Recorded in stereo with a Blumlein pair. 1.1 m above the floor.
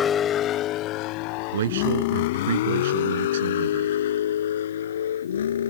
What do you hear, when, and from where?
0.0 s a vehicle: 20° left; by 5.7 s 65° left
1.5 s a man speaking: 60° right